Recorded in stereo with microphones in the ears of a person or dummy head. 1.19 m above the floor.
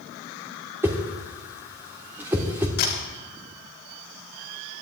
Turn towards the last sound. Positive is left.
turn(degrees=60)  # may be behind; listen again after turning